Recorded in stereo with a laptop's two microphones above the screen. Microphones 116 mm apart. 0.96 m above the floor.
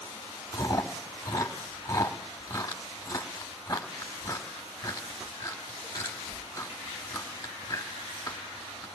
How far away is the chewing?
About 1.4 m.